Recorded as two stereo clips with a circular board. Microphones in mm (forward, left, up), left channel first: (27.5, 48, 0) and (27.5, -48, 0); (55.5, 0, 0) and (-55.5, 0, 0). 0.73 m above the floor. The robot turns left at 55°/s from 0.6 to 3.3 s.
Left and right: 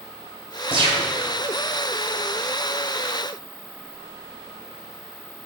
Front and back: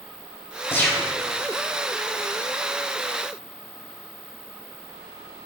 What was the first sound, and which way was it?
A gunshot, 65° right.